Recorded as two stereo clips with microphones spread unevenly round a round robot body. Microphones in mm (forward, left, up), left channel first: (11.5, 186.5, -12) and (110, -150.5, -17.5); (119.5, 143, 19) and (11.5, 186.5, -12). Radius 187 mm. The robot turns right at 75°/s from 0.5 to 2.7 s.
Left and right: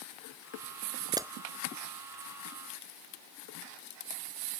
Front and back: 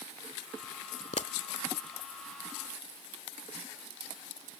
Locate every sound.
1.1 s a pop: straight ahead; by 1.3 s 15° left